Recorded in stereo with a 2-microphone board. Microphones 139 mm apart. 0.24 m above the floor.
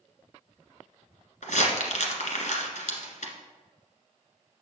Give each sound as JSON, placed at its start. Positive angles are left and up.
{"t": 1.4, "sound": "crumpling", "side_deg": 70, "distance_m": 1.4}